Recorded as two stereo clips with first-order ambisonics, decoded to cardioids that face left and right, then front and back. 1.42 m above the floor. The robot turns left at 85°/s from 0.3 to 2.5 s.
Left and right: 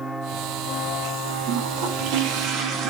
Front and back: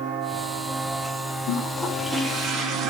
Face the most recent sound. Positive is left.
turn(degrees=-130)